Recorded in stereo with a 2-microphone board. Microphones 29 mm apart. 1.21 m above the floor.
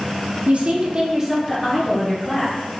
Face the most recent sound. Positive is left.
turn(degrees=25)  # may be behind; listen again after turning